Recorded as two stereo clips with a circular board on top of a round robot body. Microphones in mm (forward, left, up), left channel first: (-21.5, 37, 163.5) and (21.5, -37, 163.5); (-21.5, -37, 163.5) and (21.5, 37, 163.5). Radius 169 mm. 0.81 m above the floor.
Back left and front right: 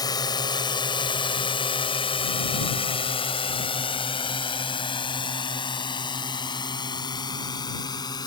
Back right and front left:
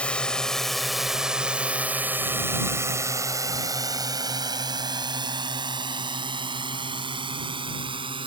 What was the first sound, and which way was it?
A drone, 165° left.